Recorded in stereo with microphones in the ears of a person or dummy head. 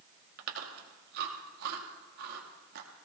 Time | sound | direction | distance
0.4 | chewing | 50° right (ahead or behind) | 1.7 m